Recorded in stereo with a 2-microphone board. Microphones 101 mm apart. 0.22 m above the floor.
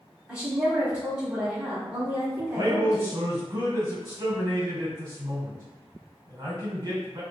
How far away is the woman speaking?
About 1.2 m.